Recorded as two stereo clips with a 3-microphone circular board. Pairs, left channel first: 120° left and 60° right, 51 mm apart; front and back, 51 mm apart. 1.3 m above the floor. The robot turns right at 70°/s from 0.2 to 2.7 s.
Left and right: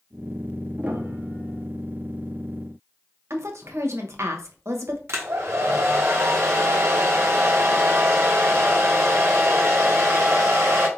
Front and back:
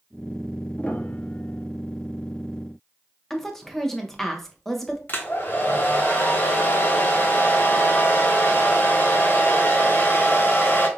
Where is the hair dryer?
45° right, 0.9 m.